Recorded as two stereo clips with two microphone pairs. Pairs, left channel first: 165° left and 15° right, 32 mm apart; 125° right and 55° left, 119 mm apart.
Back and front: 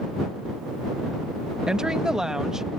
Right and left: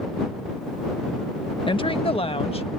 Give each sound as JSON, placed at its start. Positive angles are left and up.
{"t": 1.7, "sound": "a woman speaking", "azimuth_deg": -85}